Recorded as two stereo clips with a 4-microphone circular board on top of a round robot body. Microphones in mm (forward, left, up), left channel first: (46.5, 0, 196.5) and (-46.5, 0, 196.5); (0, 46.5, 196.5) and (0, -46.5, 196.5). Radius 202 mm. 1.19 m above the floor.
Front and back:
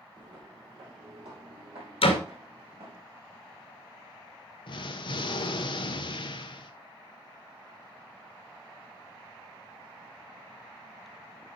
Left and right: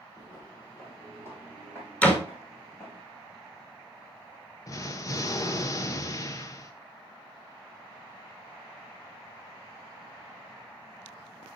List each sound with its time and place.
0.2 s footsteps: 145° left, 1.9 m; by 3.0 s 160° left, 4.5 m
2.0 s a door slam: 15° left, 1.8 m
4.7 s an explosion: 35° left, 0.6 m